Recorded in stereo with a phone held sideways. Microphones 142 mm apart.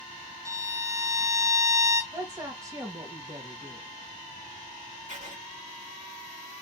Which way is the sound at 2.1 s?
20° right (ahead or behind).